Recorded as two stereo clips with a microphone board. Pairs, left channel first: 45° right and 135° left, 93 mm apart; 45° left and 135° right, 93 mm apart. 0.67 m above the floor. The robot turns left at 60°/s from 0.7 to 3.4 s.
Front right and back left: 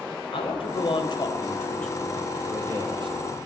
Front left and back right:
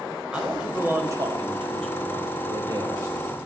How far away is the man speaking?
About 4 m.